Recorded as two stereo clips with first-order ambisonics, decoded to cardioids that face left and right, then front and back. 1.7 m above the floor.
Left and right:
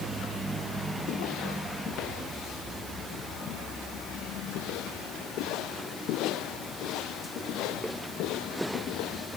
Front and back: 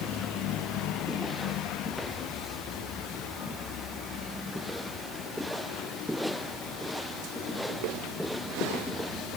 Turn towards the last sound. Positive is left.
No sound to turn to.